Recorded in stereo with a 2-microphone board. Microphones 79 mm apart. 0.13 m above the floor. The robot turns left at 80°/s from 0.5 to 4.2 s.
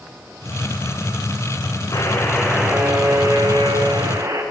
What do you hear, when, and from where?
1.9 s a buzzer: 45° left, 5 m; by 4.4 s 140° right, 5 m